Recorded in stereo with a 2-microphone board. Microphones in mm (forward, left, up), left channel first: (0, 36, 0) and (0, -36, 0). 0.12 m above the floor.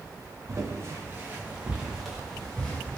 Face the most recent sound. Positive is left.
turn(degrees=20)  # may be behind; listen again after turning